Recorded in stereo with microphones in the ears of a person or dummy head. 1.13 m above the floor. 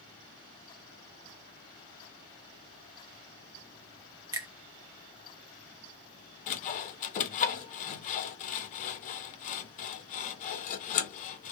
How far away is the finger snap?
About 0.5 m.